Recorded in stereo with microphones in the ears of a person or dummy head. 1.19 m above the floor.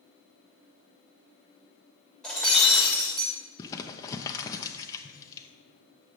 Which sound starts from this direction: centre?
Breaking glass, at 2.2 s.